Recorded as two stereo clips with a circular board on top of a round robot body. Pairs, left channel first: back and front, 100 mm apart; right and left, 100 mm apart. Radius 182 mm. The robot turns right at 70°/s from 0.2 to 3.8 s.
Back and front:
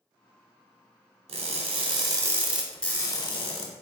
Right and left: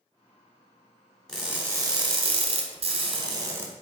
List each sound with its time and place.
1.3 s crushing: 5° right, 0.9 m; by 3.7 s 165° left, 0.9 m